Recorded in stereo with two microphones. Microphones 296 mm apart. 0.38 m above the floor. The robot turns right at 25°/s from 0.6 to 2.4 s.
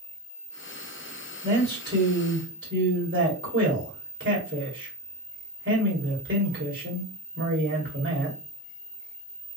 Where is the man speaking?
30° right (ahead or behind), 1.9 m; by 8.4 s 40° right (ahead or behind), 1.9 m.